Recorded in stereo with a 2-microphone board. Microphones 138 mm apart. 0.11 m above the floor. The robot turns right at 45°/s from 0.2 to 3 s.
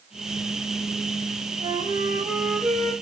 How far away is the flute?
About 1.2 m.